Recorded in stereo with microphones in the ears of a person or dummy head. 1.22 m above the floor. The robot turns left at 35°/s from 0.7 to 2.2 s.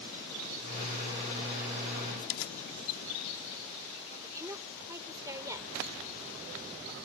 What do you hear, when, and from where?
2.2 s keys jangling: 75° left (ahead or behind)
4.2 s a woman speaking: 15° right (ahead or behind)